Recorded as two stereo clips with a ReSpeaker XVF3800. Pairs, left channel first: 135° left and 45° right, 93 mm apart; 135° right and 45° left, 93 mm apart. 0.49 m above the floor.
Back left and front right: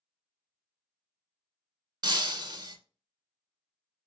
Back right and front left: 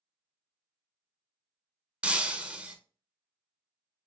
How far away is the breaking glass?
About 0.5 m.